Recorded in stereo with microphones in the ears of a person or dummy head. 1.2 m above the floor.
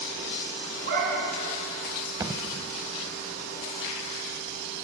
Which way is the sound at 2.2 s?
15° right (ahead or behind).